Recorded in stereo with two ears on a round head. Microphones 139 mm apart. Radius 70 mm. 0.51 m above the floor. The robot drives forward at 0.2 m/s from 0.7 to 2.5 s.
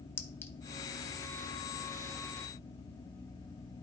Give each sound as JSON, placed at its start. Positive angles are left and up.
{"t": 0.2, "sound": "a clink", "side_deg": 15, "distance_m": 0.9}